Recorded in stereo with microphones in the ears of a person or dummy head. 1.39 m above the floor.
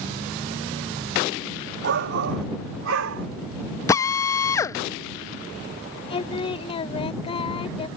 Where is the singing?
30° left (ahead or behind).